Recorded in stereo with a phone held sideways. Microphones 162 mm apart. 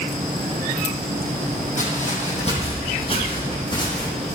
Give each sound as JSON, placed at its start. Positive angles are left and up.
{"t": 1.8, "sound": "footsteps", "side_deg": 50, "distance_m": 3.5}